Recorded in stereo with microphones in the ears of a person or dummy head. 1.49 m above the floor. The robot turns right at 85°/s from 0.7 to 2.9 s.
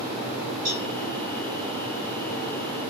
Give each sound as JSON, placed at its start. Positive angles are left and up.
{"t": 0.7, "sound": "a cowbell", "side_deg": -35, "distance_m": 2.5}